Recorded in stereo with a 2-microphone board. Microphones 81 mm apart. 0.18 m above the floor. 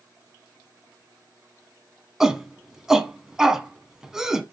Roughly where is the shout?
Centre.